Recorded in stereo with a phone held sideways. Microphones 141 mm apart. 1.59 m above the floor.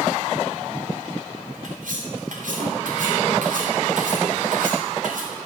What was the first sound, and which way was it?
Cutlery clinking, 70° right (ahead or behind).